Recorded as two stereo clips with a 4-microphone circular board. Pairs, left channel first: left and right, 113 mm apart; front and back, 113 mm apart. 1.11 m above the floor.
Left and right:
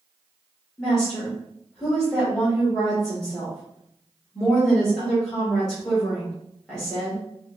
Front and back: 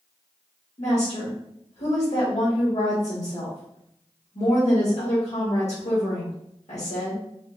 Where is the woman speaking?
5° left, 1.6 m.